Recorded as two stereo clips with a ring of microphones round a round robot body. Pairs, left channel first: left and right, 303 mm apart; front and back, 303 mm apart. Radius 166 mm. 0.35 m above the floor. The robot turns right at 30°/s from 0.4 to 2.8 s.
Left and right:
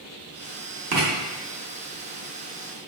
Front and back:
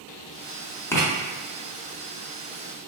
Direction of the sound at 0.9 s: 75° right.